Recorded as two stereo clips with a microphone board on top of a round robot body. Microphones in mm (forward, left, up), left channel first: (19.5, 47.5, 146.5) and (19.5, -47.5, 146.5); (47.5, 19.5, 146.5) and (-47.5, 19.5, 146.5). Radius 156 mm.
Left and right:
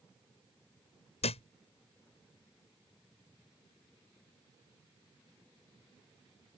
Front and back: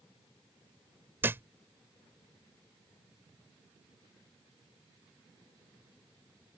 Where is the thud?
110° left.